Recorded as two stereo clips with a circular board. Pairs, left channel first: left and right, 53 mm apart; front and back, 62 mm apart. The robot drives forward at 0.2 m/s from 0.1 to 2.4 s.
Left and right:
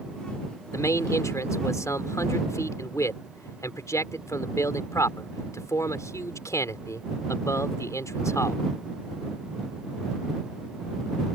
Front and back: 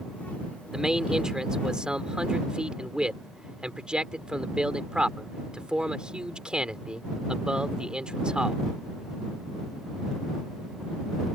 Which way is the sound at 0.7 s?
95° left.